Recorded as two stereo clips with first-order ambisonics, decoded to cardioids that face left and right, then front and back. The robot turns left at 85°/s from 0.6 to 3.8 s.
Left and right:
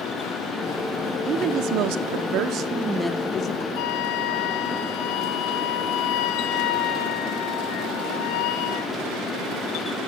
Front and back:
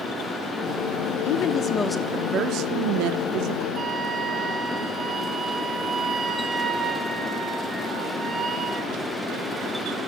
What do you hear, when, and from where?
1.2 s a woman speaking: 25° right, 1.3 m; by 3.6 s 130° left, 1.3 m
3.8 s a flute: 120° left, 2.5 m; by 8.9 s 115° left, 2.5 m